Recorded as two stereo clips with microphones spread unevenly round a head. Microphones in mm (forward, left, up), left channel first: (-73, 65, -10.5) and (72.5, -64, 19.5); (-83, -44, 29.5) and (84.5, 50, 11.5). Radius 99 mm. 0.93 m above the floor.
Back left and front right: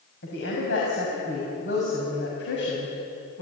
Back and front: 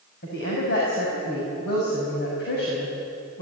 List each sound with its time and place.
0.2 s a woman speaking: 175° left, 5.5 m